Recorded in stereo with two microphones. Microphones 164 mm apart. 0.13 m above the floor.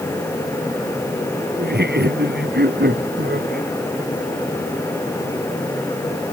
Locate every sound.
1.6 s laughter: 85° right; by 3.7 s 80° right